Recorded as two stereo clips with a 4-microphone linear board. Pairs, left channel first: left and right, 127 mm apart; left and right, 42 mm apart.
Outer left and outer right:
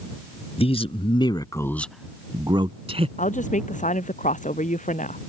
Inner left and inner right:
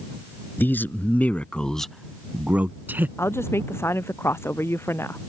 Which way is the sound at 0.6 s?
50° left (ahead or behind).